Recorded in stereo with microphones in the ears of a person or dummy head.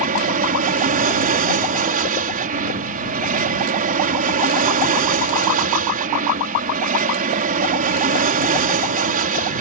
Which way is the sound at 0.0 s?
40° right (ahead or behind).